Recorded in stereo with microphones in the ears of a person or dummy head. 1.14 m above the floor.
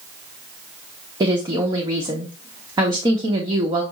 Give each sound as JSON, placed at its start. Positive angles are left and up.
{"t": 1.2, "sound": "a woman speaking", "side_deg": -15, "distance_m": 0.8}